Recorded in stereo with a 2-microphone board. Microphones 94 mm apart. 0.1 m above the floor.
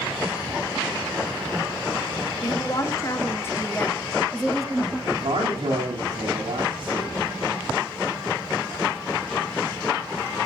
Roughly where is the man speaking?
Right.